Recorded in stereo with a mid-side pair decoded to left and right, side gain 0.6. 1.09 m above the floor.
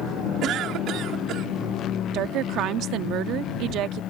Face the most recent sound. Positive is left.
turn(degrees=-60)